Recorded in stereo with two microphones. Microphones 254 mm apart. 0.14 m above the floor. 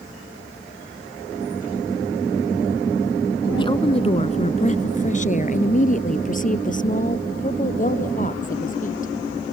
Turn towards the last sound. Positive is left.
turn(degrees=30)  # may be behind; listen again after turning